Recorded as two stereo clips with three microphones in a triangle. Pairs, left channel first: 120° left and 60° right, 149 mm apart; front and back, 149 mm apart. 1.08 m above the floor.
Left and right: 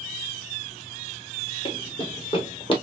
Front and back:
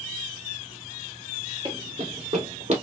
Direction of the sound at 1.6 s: 150° left.